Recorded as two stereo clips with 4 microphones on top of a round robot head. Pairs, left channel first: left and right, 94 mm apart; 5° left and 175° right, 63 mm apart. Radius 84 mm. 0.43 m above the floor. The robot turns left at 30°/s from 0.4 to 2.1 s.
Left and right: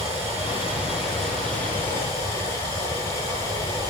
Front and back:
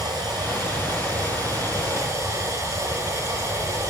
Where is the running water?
155° right, 8.5 m; by 3.9 s 150° left, 8.5 m.